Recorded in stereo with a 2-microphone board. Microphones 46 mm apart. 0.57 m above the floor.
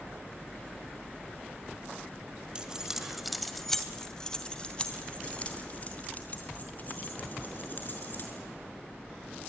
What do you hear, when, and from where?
2.5 s keys jangling: 20° right (ahead or behind), 1.7 m; by 8.4 s 40° left (ahead or behind), 5.5 m